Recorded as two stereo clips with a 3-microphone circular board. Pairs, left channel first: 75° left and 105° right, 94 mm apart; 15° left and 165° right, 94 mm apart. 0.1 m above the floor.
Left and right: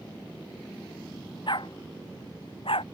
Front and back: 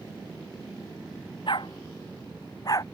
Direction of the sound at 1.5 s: 45° left.